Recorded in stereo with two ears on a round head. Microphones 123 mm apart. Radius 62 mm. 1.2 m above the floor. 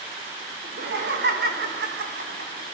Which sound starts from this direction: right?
Laughter, at 0.6 s.